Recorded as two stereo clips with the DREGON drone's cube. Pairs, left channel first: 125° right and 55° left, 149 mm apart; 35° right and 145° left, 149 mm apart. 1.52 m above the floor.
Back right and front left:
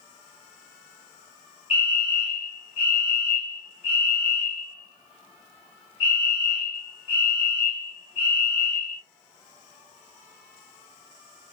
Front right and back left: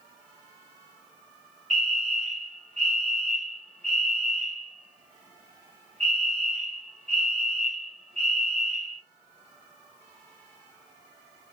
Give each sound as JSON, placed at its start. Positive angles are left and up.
{"t": 1.7, "sound": "a fire alarm", "azimuth_deg": -170, "distance_m": 3.0}